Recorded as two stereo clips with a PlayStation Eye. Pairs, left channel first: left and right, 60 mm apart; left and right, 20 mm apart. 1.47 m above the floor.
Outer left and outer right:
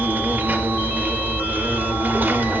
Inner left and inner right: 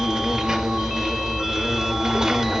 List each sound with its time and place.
0.0 s an insect: 35° right (ahead or behind), 1.6 m